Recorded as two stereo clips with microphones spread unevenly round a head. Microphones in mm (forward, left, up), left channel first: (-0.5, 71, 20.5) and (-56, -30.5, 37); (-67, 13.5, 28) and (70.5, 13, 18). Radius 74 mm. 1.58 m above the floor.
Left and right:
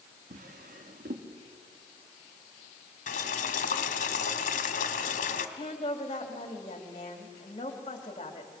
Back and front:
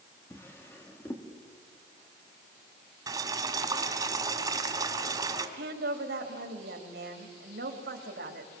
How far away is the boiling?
About 1.7 m.